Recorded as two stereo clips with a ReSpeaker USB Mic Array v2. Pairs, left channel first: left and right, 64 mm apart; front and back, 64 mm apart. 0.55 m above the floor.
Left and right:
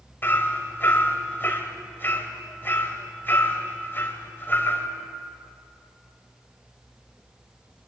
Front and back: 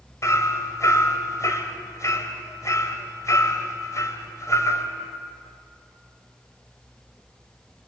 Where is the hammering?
35° left, 2.5 m.